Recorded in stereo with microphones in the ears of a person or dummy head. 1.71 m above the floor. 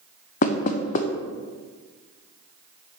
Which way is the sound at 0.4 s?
45° left (ahead or behind).